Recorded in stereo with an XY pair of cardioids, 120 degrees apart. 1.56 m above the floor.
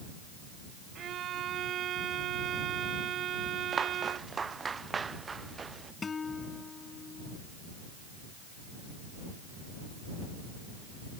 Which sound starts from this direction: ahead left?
A guitar, at 6.0 s.